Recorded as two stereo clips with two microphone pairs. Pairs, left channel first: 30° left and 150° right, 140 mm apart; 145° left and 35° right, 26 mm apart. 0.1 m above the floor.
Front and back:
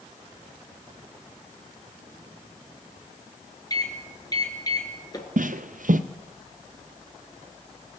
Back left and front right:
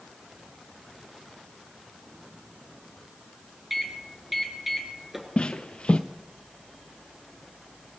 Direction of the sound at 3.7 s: 35° left.